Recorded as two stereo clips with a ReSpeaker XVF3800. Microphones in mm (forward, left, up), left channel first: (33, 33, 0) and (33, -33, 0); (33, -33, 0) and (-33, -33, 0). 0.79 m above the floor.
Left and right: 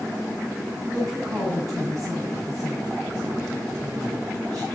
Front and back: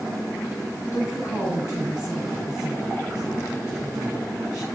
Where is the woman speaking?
50° right, 5 m.